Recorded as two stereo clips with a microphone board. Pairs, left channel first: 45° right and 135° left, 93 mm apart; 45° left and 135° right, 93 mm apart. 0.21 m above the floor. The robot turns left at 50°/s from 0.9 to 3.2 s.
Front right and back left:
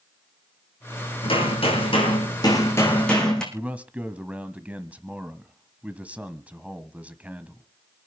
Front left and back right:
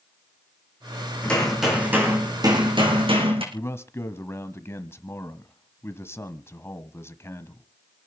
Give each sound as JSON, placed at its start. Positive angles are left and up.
{"t": 1.2, "sound": "hammering", "azimuth_deg": -30, "distance_m": 5.5}
{"t": 3.5, "sound": "a man speaking", "azimuth_deg": 75, "distance_m": 1.3}